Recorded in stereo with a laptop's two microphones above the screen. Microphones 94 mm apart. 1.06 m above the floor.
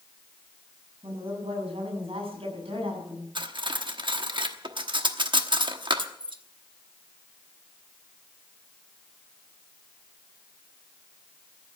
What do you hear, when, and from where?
1.0 s a woman speaking: 85° right, 7 m; by 3.2 s 75° right (ahead or behind), 7.5 m
3.4 s cutlery clinking: 60° right (ahead or behind), 1.1 m